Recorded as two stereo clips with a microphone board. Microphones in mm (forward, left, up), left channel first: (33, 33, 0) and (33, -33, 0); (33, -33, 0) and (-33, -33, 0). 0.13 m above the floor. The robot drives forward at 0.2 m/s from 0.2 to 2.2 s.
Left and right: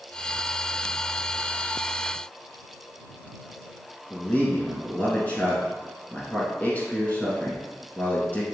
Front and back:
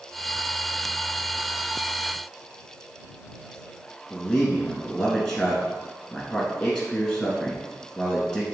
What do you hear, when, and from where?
4.1 s a man speaking: 85° left, 1.3 m